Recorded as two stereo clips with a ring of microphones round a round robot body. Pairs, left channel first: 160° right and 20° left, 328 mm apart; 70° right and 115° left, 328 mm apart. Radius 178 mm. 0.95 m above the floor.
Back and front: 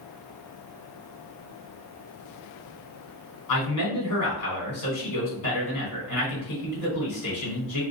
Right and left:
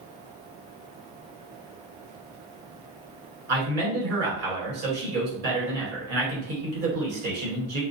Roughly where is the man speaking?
Behind.